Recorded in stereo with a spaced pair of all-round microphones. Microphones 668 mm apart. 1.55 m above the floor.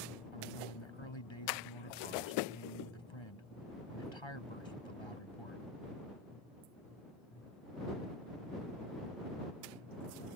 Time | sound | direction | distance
0.3 | a man speaking | 40° left (ahead or behind) | ?